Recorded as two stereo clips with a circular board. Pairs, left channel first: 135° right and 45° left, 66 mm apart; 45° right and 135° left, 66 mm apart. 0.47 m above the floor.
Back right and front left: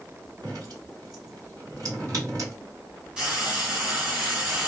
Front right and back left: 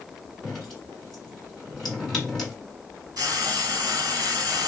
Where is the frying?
120° left, 1.1 m.